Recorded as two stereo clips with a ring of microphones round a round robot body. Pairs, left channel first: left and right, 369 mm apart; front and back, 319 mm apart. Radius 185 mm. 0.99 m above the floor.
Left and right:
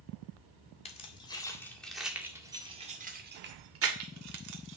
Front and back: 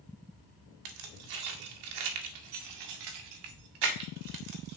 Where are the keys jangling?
165° left, 2 m; by 4.8 s 130° right, 1.8 m.